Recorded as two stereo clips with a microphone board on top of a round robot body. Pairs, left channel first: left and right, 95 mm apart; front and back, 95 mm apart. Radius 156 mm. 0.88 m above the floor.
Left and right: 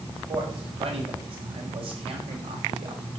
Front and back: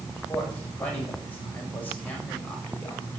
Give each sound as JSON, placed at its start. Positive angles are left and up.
{"t": 0.1, "sound": "a man speaking", "azimuth_deg": -75, "distance_m": 5.5}